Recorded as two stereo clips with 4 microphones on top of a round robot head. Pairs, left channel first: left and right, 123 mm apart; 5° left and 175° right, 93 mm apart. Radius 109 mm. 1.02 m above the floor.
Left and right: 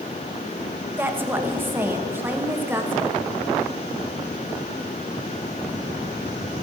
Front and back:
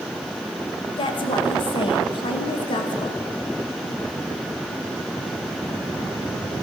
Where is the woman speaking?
20° right, 1.5 m.